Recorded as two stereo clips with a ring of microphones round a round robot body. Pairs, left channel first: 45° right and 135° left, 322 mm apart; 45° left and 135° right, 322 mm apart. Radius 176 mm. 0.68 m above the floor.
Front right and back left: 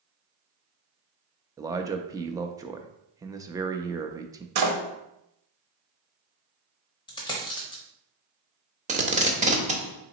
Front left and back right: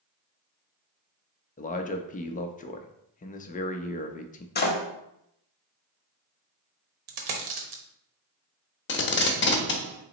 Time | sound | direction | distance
1.6 | a man speaking | 70° left | 0.5 m
4.5 | a door slam | 105° left | 0.8 m
7.1 | a dropped coin | 120° right | 0.8 m
8.9 | tape being pulled | 80° left | 0.9 m